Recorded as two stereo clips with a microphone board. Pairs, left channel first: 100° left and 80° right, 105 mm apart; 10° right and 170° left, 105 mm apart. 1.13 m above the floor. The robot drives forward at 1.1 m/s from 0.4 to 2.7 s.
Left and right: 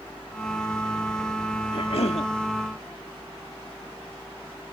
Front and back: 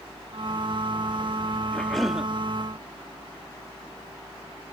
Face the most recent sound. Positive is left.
turn(degrees=100)